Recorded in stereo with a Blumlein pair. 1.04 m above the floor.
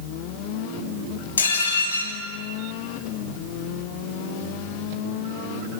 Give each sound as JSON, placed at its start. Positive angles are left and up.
{"t": 1.4, "sound": "dishes clattering", "azimuth_deg": 70, "distance_m": 4.5}